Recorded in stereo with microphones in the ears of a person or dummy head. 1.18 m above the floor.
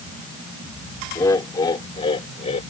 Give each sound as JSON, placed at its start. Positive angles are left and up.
{"t": 1.1, "sound": "laughter", "side_deg": 25}